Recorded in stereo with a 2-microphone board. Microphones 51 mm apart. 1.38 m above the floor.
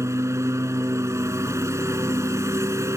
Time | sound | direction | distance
0.0 | a lawn mower | 65° right (ahead or behind) | ?